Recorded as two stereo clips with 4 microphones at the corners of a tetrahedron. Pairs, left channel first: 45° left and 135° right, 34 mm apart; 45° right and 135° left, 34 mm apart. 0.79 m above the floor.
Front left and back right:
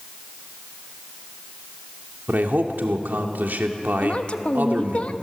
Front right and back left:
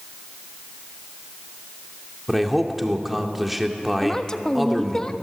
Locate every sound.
2.3 s a man speaking: 140° right, 2 m
4.0 s a woman speaking: 15° left, 1.1 m